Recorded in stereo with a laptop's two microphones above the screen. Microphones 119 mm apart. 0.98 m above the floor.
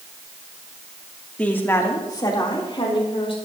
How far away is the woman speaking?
About 2 m.